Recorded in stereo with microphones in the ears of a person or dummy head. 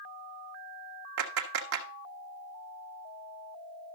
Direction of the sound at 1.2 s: 65° right (ahead or behind).